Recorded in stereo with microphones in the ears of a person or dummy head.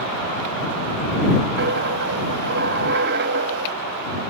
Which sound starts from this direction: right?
A dropped coin, at 1.6 s.